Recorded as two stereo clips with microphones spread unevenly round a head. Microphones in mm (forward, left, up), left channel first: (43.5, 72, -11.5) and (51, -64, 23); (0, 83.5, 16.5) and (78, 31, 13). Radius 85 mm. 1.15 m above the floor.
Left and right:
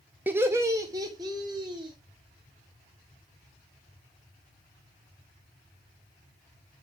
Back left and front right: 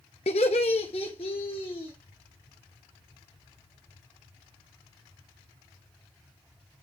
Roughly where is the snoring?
I don't hear snoring.